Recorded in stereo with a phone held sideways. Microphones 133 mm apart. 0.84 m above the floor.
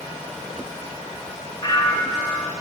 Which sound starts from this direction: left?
A bell, at 1.6 s.